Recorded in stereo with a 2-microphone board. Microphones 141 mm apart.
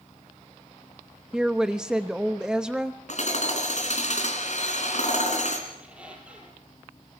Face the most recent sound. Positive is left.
turn(degrees=-10)  # may be behind; listen again after turning